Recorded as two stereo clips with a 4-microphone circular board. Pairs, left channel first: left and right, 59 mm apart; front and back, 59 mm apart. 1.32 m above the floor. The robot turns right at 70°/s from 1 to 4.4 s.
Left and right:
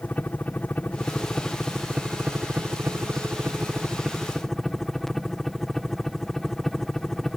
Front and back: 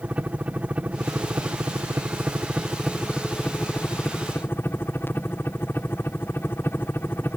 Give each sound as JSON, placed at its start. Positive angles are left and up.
{"t": 0.0, "sound": "a helicopter", "azimuth_deg": 130}